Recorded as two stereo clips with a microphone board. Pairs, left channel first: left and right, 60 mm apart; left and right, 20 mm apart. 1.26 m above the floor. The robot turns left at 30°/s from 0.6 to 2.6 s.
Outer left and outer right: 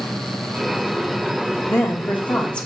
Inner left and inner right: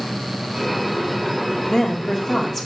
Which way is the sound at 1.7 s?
45° left (ahead or behind).